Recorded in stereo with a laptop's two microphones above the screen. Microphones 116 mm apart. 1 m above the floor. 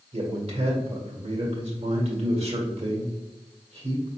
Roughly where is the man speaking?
Right.